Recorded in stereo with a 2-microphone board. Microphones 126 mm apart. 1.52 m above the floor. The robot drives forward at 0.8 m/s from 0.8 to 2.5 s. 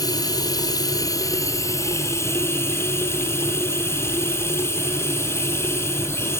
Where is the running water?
30° left (ahead or behind), 1.9 m; by 6.4 s 20° left (ahead or behind), 3 m.